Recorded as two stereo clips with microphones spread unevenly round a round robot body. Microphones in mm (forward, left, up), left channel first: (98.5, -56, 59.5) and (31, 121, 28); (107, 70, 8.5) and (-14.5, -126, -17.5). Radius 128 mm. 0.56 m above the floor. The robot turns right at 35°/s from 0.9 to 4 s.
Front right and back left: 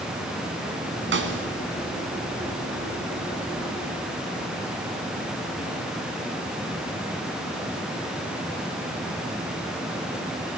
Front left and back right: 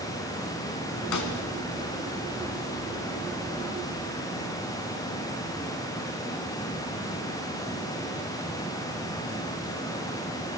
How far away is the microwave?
I don't hear a microwave.